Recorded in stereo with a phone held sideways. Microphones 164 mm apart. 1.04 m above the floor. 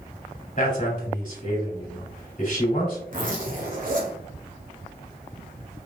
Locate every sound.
0.6 s a man speaking: 55° left (ahead or behind), 3 m
3.1 s a zipper: 55° right (ahead or behind), 1.8 m